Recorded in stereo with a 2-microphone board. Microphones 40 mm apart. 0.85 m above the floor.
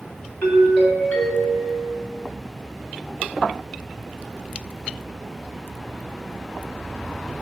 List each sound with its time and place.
0.4 s a doorbell: 45° left (ahead or behind), 2.5 m